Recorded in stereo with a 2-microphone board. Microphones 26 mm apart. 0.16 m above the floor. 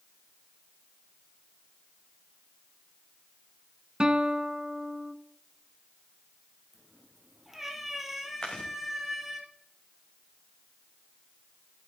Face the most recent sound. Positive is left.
turn(degrees=25)  # may be behind; listen again after turning